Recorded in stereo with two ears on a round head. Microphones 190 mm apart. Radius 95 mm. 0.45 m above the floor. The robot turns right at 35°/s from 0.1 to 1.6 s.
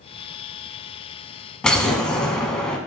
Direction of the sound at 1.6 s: 5° left (ahead or behind).